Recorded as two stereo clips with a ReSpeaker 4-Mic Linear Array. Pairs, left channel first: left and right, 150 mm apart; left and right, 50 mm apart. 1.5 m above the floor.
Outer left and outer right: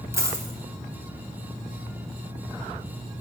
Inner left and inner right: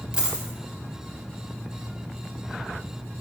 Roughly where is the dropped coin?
Centre.